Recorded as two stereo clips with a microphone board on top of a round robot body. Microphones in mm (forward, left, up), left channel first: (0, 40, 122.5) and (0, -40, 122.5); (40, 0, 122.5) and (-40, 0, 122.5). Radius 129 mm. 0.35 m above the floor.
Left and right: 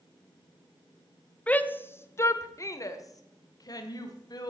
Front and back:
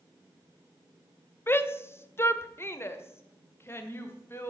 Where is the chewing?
No chewing in this recording.